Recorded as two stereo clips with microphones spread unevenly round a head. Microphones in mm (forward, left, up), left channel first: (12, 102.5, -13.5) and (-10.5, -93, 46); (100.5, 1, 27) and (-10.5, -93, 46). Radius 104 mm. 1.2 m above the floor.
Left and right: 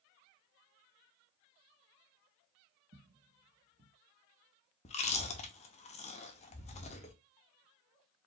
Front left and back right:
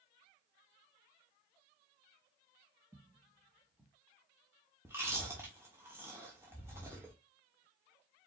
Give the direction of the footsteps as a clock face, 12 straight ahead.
3 o'clock.